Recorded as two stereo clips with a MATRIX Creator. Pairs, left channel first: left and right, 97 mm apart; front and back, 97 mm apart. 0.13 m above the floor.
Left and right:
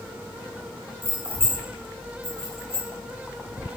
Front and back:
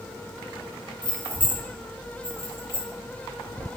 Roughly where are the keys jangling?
Ahead left.